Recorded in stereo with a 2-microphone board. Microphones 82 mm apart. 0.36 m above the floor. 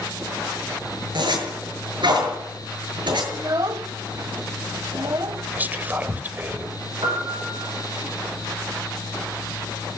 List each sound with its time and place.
1.1 s a zipper: 70° right (ahead or behind), 7.5 m
3.3 s a child speaking: 45° right (ahead or behind), 1.1 m
5.5 s whispering: 20° right (ahead or behind), 1.3 m
7.0 s a piano: 65° right (ahead or behind), 7.5 m